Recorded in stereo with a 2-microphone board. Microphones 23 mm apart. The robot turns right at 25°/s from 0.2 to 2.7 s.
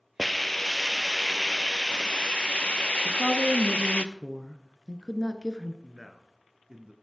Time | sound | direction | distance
0.2 | a hiss | straight ahead | 0.7 m
3.0 | a woman speaking | 5° left (ahead or behind) | 1.2 m
5.8 | a man speaking | 30° right (ahead or behind) | 1.4 m